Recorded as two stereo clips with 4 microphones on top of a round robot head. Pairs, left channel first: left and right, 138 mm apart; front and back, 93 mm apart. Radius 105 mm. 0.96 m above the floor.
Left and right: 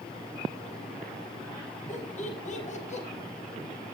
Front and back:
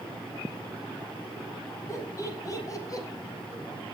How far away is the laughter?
About 5.5 m.